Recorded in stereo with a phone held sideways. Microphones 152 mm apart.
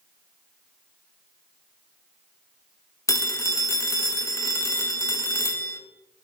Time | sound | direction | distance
3.1 | a phone ringing | 20° left (ahead or behind) | 1.2 m